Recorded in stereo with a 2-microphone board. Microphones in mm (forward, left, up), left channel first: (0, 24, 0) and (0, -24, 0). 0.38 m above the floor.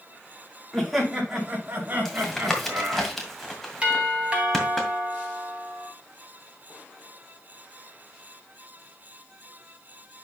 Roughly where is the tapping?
Centre.